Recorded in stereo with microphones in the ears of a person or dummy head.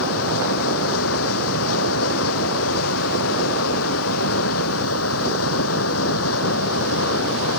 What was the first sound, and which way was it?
Running water, 85° left.